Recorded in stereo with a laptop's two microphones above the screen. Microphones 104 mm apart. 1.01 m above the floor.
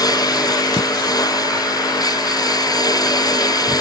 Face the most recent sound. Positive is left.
turn(degrees=40)  # may be behind; listen again after turning